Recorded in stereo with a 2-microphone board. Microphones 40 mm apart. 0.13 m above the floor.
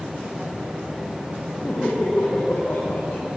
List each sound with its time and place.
1.6 s laughter: 45° left (ahead or behind), 6 m